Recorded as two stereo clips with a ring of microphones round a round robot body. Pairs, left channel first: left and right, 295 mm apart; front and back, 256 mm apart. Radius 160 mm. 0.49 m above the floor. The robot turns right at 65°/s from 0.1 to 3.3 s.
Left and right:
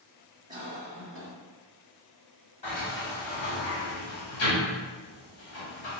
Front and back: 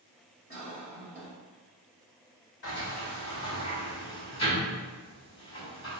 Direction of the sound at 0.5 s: 140° right.